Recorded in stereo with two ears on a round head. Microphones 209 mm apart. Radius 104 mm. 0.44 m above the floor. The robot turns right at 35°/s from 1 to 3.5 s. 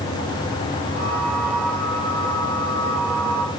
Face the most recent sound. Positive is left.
No sound to turn to.